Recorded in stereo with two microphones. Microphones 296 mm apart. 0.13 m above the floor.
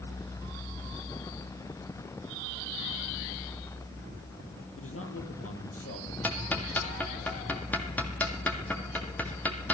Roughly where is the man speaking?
Left.